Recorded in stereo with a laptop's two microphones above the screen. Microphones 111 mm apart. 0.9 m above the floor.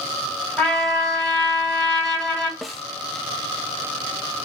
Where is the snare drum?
Centre (ahead or behind), 0.6 m.